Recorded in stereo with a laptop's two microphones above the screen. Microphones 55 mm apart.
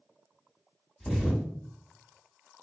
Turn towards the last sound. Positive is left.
turn(degrees=10)  # may be behind; listen again after turning